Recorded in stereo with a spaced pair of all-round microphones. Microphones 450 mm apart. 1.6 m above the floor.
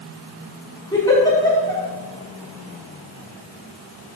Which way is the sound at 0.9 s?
10° left (ahead or behind).